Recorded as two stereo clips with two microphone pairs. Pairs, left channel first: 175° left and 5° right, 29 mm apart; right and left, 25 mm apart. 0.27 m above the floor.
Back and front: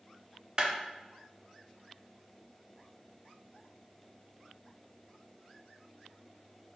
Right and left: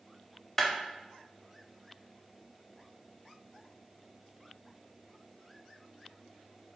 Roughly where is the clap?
Ahead right.